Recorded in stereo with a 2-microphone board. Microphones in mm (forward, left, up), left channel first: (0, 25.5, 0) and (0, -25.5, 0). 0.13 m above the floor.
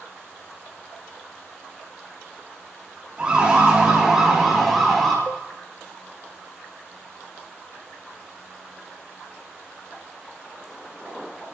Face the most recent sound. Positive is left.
turn(degrees=40)  # may be behind; listen again after turning